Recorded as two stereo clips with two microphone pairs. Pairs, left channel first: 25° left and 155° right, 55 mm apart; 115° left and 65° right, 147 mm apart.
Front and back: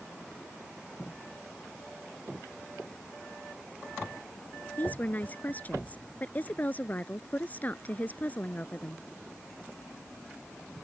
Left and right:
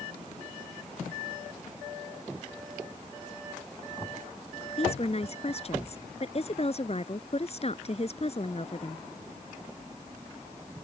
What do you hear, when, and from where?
4.8 s a woman speaking: 80° left